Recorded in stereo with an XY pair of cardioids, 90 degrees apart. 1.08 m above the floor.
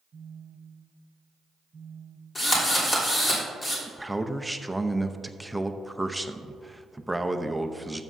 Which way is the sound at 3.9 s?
5° right.